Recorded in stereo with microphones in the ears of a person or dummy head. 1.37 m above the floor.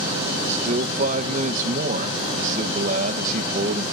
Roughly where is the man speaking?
Right.